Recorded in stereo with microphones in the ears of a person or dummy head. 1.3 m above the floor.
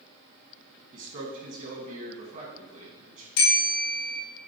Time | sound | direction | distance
0.9 | a man speaking | 35° right (ahead or behind) | 1.8 m
3.4 | a bell | 75° left (ahead or behind) | 2.5 m